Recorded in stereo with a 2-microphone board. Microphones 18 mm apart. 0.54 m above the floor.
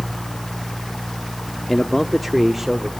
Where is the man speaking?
20° left (ahead or behind), 0.8 m; by 2.9 s 10° right (ahead or behind), 1.5 m.